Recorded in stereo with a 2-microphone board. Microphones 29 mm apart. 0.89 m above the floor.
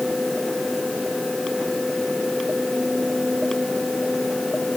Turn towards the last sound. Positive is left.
No sound to turn to.